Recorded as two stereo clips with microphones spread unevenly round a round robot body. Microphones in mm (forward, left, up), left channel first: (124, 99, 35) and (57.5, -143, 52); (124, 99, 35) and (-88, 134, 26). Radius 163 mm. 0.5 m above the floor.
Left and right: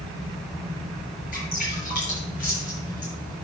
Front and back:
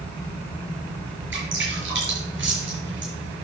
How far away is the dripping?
About 6 m.